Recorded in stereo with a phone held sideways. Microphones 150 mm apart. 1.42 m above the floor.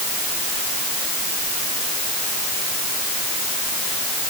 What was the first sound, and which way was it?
Only background noise.